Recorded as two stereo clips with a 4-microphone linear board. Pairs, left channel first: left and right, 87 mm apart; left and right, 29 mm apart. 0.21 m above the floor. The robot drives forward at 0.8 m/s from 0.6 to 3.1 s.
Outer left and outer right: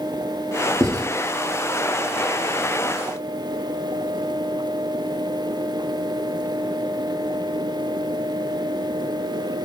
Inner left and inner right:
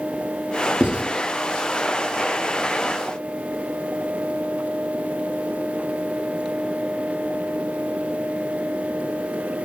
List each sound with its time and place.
0.8 s writing: 40° right (ahead or behind), 1.6 m; by 1.0 s 45° right (ahead or behind), 1.5 m